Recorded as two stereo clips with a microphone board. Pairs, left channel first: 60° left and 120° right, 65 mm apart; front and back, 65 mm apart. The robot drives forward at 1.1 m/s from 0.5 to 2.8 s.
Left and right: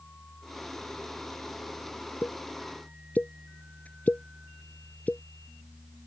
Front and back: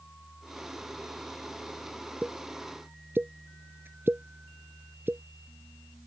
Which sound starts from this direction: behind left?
A pop, at 2.2 s.